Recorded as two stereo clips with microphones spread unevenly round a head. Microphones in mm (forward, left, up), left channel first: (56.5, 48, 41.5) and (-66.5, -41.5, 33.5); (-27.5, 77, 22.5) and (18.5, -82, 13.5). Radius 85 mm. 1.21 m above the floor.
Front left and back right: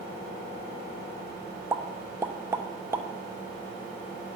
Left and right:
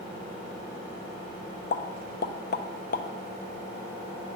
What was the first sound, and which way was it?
A pop, 145° left.